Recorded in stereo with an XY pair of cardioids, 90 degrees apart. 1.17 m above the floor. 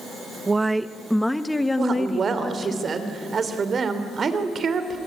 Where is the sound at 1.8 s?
50° right, 3 m.